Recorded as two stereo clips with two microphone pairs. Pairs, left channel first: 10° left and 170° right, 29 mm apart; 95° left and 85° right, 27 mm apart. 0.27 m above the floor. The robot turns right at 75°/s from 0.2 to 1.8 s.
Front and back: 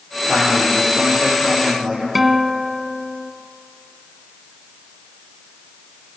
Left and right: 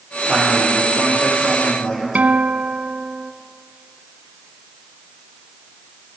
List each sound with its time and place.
0.3 s a man speaking: 5° left, 9.5 m; by 2.0 s 115° left, 9.5 m
2.1 s a guitar: 85° right, 0.5 m